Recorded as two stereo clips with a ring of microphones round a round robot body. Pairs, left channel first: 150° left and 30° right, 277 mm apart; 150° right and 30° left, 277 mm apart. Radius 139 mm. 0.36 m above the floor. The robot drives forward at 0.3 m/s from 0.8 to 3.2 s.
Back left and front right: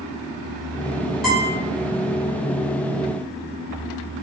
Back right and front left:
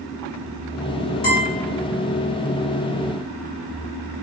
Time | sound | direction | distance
1.2 | a guitar | 115° right | 1.6 m